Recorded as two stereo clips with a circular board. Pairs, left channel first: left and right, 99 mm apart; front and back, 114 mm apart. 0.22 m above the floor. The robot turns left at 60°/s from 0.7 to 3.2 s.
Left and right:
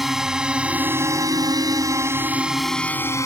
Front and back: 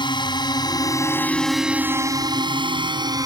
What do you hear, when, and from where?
0.0 s a drone: 5° right; by 3.3 s 135° left